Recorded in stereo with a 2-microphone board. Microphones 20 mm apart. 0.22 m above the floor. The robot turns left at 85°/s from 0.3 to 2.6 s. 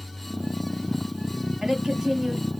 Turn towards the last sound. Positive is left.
turn(degrees=-155)